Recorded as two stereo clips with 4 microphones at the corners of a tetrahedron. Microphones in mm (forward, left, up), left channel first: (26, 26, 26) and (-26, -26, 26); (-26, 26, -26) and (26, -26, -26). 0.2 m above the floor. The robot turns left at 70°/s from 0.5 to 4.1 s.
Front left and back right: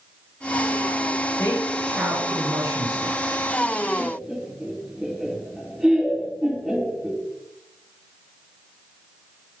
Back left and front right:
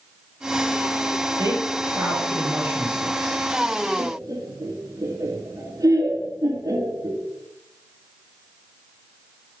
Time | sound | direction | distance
1.4 | a woman speaking | 15° right | 4.5 m
4.0 | laughter | 45° right | 3 m